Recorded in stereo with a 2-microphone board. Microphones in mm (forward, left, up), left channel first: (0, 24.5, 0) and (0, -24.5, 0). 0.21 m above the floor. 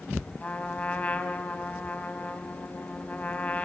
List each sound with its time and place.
0.4 s a trumpet: 30° left (ahead or behind), 0.9 m